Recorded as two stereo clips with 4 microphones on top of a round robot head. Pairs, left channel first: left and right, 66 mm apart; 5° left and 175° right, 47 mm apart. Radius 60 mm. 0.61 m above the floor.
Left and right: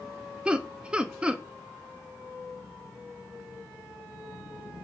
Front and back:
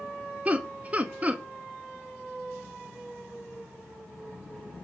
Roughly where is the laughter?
Behind right.